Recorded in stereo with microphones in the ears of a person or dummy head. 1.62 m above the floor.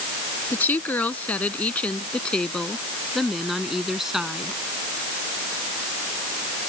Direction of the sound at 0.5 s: 15° left (ahead or behind).